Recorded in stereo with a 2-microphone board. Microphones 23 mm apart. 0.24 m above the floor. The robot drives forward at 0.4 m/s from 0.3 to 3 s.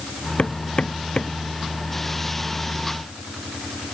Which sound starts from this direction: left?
Hammering, at 0.4 s.